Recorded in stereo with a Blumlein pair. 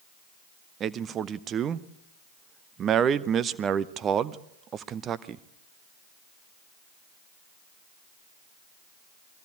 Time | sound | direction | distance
0.8 | a man speaking | 25° right | 0.8 m